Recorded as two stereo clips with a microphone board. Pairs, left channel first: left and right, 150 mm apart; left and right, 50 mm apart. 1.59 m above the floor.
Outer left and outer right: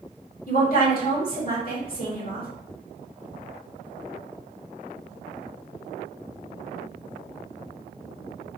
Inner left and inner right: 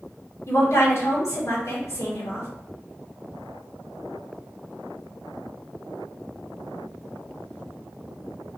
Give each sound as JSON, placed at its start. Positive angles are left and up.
{"t": 0.5, "sound": "a woman speaking", "side_deg": 70, "distance_m": 2.0}